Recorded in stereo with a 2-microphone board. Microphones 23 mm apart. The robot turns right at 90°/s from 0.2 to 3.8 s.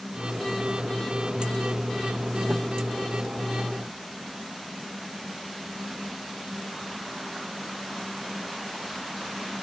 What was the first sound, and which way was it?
Only background noise.